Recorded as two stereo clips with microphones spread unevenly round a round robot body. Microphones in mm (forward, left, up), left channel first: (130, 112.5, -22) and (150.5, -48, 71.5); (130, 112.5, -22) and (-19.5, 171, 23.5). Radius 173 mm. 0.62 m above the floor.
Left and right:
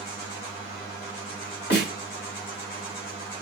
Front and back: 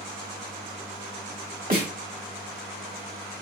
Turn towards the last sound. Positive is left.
turn(degrees=125)